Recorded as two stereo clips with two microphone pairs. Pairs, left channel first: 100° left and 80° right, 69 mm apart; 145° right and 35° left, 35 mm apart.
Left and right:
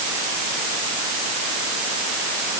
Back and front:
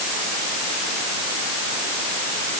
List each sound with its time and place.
Only background noise.